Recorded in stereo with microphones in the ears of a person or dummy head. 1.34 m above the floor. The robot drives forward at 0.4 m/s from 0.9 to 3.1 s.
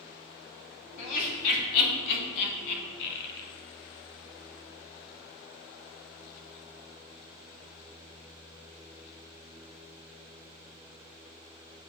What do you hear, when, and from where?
1.0 s laughter: 45° left (ahead or behind), 2.5 m; by 3.5 s 60° left (ahead or behind), 2 m